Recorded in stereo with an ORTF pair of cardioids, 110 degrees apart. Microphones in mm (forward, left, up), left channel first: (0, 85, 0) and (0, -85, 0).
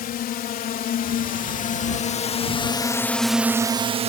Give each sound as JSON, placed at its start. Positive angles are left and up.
{"t": 0.0, "sound": "a drone", "azimuth_deg": 65}